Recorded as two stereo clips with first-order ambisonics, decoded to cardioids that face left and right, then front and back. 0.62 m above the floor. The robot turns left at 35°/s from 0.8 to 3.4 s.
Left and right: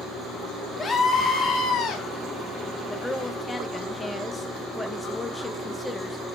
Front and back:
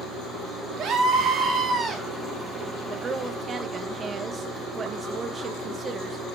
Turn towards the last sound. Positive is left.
turn(degrees=150)